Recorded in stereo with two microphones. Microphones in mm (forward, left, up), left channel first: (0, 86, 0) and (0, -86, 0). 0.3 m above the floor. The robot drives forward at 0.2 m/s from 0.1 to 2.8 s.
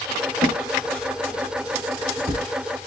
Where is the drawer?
35° right (ahead or behind), 0.9 m.